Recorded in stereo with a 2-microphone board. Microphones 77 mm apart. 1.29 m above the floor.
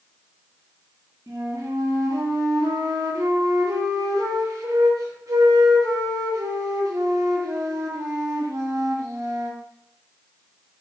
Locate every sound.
1.3 s a flute: 45° right (ahead or behind), 0.9 m